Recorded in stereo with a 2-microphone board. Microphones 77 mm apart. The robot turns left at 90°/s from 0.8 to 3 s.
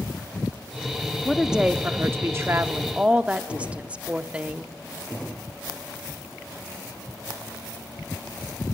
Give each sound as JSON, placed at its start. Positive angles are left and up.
{"t": 1.2, "sound": "a woman speaking", "azimuth_deg": 10, "distance_m": 0.7}